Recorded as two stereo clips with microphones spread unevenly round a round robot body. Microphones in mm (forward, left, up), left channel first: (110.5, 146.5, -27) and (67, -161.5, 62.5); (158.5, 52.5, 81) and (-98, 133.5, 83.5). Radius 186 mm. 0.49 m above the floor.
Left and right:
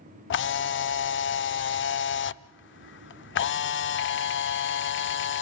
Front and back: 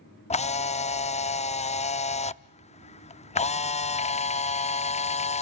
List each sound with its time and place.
0.3 s a camera shutter: 50° left, 0.5 m